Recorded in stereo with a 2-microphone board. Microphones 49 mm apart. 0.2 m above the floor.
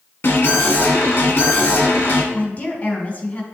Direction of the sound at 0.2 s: 50° left (ahead or behind).